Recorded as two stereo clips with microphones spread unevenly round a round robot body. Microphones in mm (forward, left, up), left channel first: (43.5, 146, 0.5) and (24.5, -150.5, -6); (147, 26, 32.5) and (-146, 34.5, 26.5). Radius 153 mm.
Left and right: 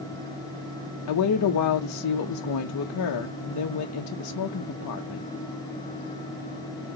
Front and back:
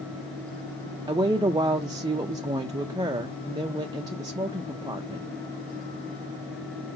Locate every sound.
1.1 s a woman speaking: 105° left, 0.6 m